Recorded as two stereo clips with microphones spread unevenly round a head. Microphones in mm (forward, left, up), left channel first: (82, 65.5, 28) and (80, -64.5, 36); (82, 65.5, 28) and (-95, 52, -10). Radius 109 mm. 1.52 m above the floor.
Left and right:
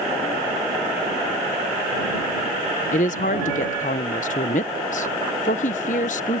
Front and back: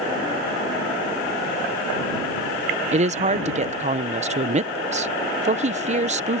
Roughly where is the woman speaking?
Behind left.